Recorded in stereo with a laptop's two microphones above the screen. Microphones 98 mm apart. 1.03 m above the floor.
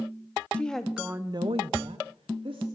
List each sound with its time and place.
0.5 s a woman speaking: 10° left (ahead or behind), 1.4 m; by 2.6 s 60° right (ahead or behind), 2 m